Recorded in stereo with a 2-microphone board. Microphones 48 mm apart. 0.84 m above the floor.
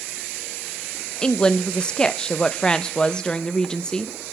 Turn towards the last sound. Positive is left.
turn(degrees=20)  # may be behind; listen again after turning